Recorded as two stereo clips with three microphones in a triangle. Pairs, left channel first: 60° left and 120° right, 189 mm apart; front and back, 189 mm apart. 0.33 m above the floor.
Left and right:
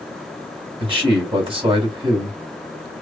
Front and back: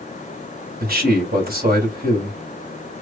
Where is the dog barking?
I don't hear a dog barking.